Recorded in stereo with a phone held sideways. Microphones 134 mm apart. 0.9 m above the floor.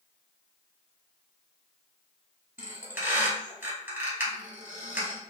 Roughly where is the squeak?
Centre.